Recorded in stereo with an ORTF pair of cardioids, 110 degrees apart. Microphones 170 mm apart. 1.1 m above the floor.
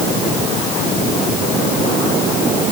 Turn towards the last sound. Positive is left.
No sound to turn to.